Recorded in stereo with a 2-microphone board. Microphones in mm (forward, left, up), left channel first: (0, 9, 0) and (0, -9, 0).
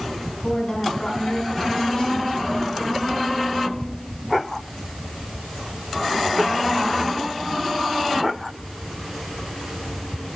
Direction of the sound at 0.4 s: 30° left (ahead or behind).